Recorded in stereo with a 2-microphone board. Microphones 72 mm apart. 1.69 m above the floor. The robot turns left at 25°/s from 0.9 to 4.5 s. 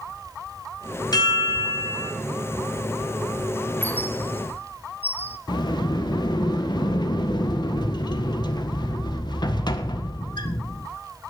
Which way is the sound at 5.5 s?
85° left.